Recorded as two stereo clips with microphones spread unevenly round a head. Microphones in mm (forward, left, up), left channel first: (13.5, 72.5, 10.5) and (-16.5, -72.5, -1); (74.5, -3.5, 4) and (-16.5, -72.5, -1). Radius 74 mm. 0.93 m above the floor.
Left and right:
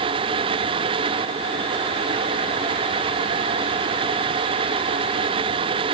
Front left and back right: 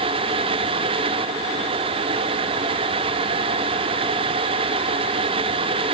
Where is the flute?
I don't hear a flute.